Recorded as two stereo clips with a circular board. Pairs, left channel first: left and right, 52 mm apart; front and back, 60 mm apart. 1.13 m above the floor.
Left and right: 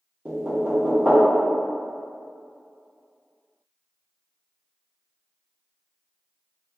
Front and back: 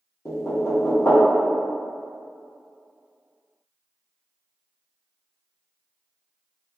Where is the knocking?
35° right, 0.8 m.